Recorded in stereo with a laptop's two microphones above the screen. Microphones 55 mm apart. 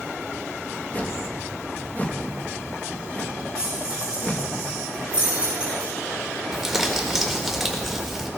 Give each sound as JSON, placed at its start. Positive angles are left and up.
{"t": 0.9, "sound": "a whoosh", "side_deg": 30, "distance_m": 1.1}
{"t": 3.5, "sound": "keys jangling", "side_deg": -20, "distance_m": 6.5}
{"t": 6.5, "sound": "crumpling", "side_deg": -5, "distance_m": 1.5}